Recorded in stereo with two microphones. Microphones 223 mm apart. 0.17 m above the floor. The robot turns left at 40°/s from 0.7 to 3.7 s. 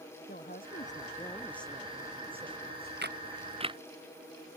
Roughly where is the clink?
No clink in this recording.